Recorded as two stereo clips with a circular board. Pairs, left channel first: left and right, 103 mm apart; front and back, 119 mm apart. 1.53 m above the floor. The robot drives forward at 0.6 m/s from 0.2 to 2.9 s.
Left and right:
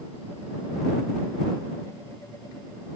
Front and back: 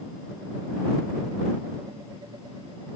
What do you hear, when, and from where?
Only background noise.